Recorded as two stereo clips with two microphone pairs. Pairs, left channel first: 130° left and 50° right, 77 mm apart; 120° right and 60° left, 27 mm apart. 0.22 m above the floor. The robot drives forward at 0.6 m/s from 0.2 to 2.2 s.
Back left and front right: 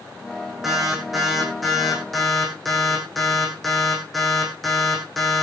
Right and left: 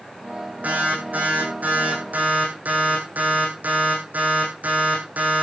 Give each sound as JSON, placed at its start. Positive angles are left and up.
{"t": 0.6, "sound": "an alarm", "azimuth_deg": 35, "distance_m": 8.0}